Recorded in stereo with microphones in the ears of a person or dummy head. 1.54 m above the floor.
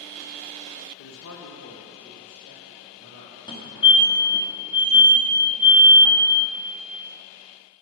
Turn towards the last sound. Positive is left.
turn(degrees=20)  # may be behind; listen again after turning